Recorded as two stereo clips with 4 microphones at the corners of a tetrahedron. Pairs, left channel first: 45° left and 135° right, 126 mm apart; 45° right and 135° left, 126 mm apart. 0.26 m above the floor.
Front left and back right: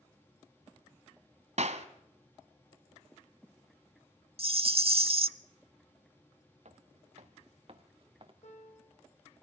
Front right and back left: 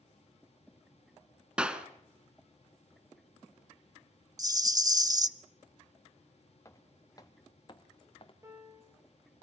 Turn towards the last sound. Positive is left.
turn(degrees=70)